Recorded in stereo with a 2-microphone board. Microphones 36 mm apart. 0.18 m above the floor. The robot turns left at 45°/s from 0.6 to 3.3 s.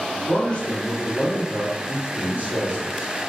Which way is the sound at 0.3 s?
25° left.